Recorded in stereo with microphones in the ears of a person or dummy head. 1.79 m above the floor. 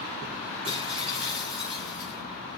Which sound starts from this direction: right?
Breaking glass, at 0.6 s.